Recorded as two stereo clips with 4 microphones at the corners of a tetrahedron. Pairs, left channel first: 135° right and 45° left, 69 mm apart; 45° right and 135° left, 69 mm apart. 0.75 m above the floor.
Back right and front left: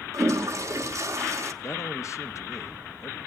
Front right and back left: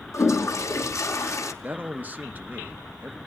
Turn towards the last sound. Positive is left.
turn(degrees=-165)